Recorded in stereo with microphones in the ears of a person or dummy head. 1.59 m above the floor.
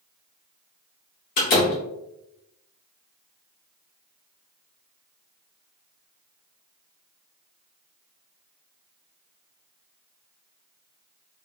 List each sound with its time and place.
1.4 s a door slam: 45° left (ahead or behind), 0.7 m